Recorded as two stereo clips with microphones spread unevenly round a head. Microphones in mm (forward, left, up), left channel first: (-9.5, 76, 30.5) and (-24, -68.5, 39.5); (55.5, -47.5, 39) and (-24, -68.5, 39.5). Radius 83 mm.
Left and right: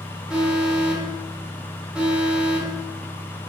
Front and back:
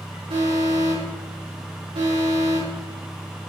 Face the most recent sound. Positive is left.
turn(degrees=180)